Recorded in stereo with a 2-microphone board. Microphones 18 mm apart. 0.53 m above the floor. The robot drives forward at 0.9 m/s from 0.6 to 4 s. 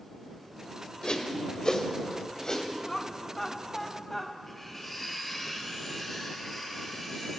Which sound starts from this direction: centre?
Cutlery clinking, at 4.5 s.